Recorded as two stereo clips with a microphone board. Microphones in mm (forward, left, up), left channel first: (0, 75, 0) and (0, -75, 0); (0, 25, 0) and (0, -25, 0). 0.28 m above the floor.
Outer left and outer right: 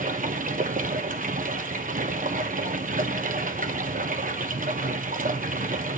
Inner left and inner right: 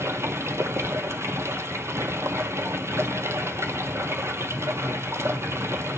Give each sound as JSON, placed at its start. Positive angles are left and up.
{"t": 0.0, "sound": "running water", "side_deg": -65, "distance_m": 0.7}